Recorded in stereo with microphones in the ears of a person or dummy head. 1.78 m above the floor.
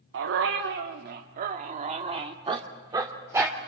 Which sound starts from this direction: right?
A dog barking, at 0.1 s.